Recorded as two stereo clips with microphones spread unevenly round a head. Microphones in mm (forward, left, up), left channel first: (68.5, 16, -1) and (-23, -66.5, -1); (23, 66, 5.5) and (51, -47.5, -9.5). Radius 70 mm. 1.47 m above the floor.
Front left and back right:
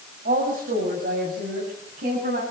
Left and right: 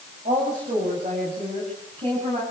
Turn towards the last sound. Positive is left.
turn(degrees=-135)